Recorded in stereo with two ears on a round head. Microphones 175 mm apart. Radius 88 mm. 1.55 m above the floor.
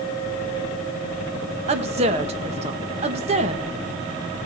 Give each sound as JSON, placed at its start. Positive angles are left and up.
{"t": 1.7, "sound": "a woman speaking", "side_deg": -30, "distance_m": 1.8}